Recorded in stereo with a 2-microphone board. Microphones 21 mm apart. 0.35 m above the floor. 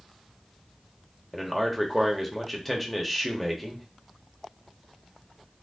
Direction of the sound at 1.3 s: 5° right (ahead or behind).